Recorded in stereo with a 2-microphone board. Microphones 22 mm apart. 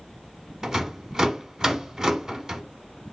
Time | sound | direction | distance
0.6 | a rattle | 25° right (ahead or behind) | 0.9 m